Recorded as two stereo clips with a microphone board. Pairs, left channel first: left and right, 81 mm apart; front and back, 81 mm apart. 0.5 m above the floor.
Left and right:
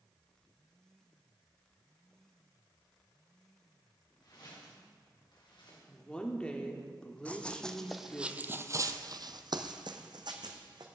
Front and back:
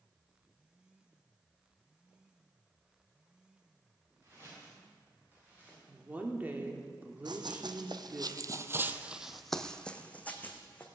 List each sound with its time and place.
4.2 s footsteps: 125° left, 6.5 m; by 5.8 s 110° left, 7 m
5.9 s a woman speaking: 150° left, 1.4 m
7.2 s running footsteps: 165° left, 1.3 m; by 10.8 s 65° right, 1.9 m